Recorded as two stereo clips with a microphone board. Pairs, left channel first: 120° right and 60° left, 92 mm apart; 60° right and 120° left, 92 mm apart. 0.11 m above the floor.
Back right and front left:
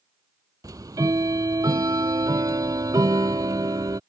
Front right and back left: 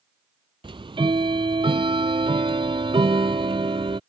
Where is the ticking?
105° left.